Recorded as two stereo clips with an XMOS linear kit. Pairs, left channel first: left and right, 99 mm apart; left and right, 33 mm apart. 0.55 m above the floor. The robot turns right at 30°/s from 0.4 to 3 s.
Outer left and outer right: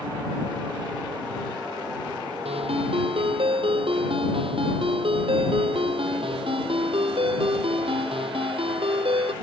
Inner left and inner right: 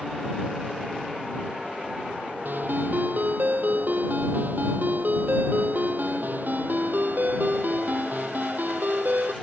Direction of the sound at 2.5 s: 80° right.